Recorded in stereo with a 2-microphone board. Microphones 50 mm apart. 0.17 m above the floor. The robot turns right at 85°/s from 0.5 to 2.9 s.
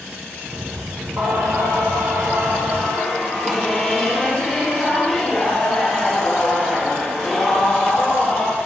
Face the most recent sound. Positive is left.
turn(degrees=0)